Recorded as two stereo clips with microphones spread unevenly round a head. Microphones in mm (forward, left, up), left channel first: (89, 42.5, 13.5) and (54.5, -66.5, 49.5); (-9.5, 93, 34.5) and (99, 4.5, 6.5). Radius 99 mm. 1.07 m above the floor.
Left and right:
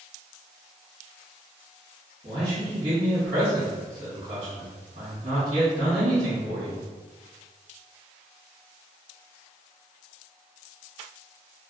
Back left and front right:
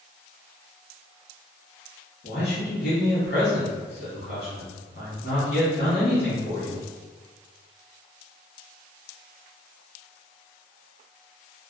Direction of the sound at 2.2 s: 175° right.